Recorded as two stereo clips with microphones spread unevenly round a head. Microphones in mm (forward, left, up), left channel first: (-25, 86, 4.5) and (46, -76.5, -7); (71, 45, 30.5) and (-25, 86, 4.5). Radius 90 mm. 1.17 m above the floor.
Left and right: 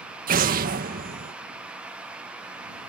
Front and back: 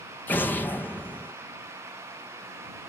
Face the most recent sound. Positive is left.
turn(degrees=-105)